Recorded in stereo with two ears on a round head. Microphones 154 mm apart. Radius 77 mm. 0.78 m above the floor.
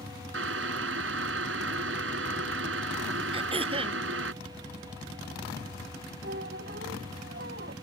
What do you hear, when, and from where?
0.3 s boiling: 85° right
3.3 s throat clearing: 35° right (ahead or behind)
6.2 s a squeak: 60° right (ahead or behind)